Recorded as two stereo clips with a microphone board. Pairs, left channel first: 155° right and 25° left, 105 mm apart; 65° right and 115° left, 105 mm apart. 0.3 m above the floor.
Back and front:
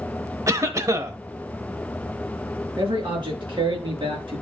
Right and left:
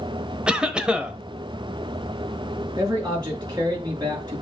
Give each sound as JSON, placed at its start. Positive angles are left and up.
{"t": 0.5, "sound": "a cough", "azimuth_deg": 40, "distance_m": 1.0}
{"t": 2.8, "sound": "a man speaking", "azimuth_deg": 60, "distance_m": 5.0}